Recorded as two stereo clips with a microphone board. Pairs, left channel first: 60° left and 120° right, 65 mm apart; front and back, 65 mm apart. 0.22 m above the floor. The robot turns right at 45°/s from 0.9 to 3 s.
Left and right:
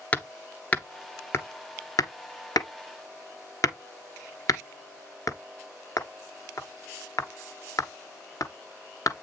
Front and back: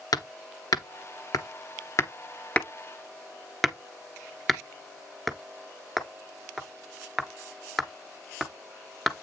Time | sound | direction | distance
0.1 | hammering | 5° right | 1.0 m